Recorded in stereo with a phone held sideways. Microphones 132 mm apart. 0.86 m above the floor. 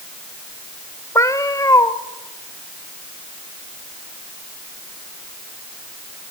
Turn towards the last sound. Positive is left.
turn(degrees=25)  # may be behind; listen again after turning